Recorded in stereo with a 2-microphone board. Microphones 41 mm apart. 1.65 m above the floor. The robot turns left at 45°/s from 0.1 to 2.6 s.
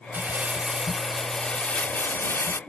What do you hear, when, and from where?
0.1 s crumpling: 135° right; by 2.6 s 115° left